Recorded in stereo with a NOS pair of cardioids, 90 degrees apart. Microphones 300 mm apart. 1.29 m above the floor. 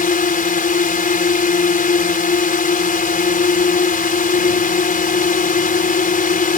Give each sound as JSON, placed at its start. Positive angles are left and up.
{"t": 0.0, "sound": "a drone", "azimuth_deg": 30}